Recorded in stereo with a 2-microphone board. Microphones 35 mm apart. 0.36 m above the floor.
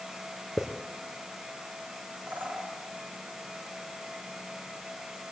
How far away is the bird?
About 3.5 m.